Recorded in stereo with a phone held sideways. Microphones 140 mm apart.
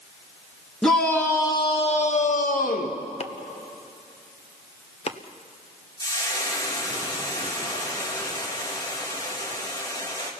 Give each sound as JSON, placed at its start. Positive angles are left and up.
{"t": 0.8, "sound": "a shout", "side_deg": 5, "distance_m": 2.0}
{"t": 3.2, "sound": "chopping", "side_deg": 45, "distance_m": 0.9}
{"t": 6.0, "sound": "frying", "side_deg": 25, "distance_m": 3.0}